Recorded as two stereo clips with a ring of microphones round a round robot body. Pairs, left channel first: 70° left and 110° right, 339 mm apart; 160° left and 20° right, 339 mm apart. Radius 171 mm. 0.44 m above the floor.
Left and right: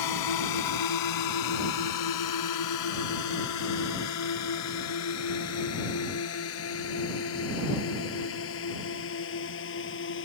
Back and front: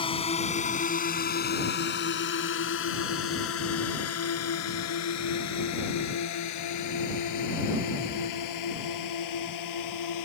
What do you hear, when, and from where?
0.0 s a drone: 85° left; by 10.3 s 125° left